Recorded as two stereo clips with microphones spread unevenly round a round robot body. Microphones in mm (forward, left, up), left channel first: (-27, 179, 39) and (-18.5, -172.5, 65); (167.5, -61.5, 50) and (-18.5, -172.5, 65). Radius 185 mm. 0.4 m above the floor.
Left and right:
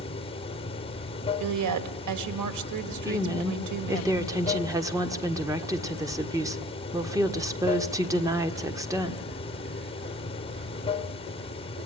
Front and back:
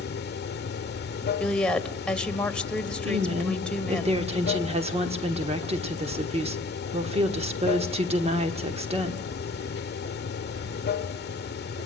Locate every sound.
0.0 s running water: 25° left, 1.1 m
1.4 s a woman speaking: 55° right, 2 m
3.0 s a woman speaking: 165° right, 1.4 m